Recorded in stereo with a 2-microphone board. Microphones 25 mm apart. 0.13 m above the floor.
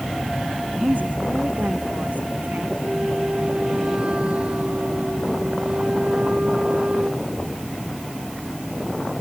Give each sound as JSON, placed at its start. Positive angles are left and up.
{"t": 0.8, "sound": "a woman speaking", "side_deg": -80}
{"t": 2.8, "sound": "a flute", "side_deg": -45}